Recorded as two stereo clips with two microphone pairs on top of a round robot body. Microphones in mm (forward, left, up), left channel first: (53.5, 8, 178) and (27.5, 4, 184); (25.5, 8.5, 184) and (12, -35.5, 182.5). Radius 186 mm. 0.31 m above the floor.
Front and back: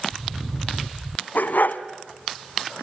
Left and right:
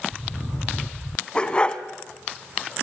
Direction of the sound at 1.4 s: Straight ahead.